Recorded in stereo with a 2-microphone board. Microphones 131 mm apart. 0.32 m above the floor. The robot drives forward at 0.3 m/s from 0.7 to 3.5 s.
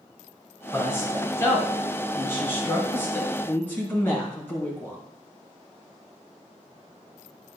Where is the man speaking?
20° left (ahead or behind), 3 m; by 5.0 s 15° left (ahead or behind), 3.5 m.